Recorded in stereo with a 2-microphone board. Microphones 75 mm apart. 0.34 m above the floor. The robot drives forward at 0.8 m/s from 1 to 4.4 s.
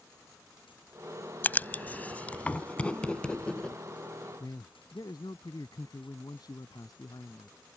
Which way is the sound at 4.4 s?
65° left (ahead or behind).